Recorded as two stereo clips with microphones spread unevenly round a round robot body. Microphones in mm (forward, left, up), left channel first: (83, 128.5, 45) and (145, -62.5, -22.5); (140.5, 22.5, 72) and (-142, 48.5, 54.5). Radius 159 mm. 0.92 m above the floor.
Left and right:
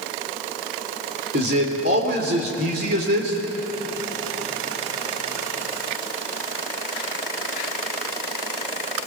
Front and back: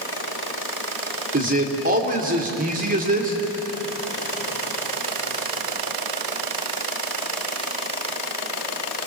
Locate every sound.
1.3 s a man speaking: 125° right, 3 m